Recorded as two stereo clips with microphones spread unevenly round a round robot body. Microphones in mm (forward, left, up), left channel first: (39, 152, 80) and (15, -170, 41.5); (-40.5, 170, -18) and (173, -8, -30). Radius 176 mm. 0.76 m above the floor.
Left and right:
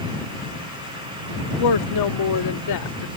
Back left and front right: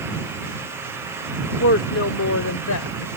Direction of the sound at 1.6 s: 100° left.